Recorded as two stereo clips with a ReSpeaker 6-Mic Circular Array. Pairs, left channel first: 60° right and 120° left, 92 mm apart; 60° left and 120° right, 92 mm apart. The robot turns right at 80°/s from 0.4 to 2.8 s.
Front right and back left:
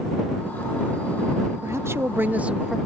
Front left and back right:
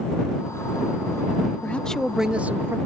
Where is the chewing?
No chewing in this recording.